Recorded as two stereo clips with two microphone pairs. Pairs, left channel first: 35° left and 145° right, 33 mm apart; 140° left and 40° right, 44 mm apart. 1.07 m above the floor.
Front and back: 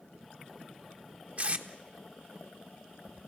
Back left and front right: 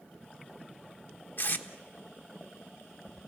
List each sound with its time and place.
1.4 s tape being pulled: 170° left, 1.2 m